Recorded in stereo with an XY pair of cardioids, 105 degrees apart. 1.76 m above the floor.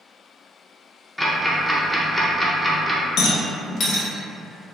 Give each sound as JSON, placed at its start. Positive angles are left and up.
{"t": 1.2, "sound": "ticking", "azimuth_deg": 10, "distance_m": 0.5}
{"t": 3.2, "sound": "a rattle", "azimuth_deg": 65, "distance_m": 0.5}